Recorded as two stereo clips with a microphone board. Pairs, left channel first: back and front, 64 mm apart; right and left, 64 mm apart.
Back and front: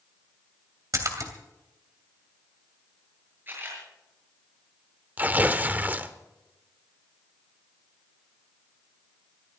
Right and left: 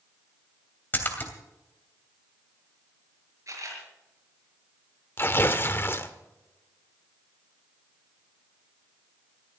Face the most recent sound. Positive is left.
turn(degrees=-50)